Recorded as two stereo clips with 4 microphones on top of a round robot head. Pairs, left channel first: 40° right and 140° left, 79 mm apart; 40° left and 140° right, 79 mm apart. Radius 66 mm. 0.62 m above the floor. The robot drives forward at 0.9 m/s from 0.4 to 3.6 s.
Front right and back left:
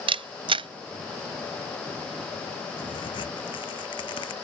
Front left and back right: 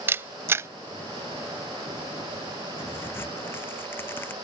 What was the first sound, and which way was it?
A camera shutter, 155° left.